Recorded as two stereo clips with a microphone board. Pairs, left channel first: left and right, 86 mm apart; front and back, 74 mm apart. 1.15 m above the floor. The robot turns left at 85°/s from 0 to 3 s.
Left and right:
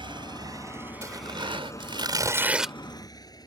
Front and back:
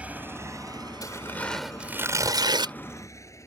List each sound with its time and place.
0.0 s a motorcycle: 105° right; by 3.5 s 50° left
1.0 s tearing paper: 35° right; by 2.8 s 175° left